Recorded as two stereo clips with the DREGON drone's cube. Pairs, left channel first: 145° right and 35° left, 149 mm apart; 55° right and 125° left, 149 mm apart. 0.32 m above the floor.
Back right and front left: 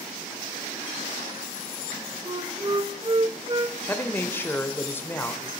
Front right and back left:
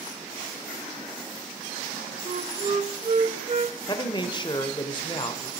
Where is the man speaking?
80° right, 0.9 m.